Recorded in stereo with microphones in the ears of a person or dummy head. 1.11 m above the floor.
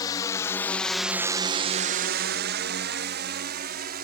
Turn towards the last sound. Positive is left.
turn(degrees=-50)  # may be behind; listen again after turning